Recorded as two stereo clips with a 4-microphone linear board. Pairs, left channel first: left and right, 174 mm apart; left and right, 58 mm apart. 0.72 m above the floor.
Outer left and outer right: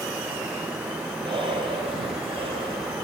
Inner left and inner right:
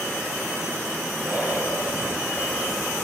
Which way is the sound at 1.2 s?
30° right (ahead or behind).